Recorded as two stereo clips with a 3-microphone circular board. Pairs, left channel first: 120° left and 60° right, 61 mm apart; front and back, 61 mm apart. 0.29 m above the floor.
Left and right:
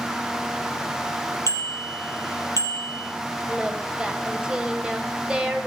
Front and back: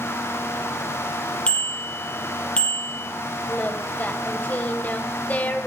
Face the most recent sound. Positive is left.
turn(degrees=0)